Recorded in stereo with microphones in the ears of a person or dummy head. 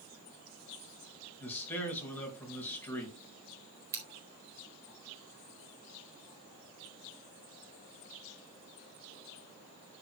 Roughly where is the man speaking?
Centre.